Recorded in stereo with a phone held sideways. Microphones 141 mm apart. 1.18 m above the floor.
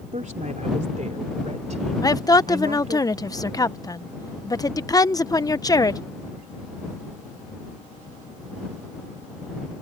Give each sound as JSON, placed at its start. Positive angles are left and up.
{"t": 0.1, "sound": "a woman speaking", "side_deg": -65}
{"t": 2.0, "sound": "a woman speaking", "side_deg": 25}